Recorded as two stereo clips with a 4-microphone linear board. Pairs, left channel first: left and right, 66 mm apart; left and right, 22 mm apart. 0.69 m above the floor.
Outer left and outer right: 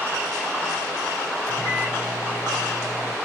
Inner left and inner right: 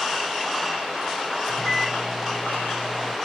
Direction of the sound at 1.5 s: 40° left (ahead or behind).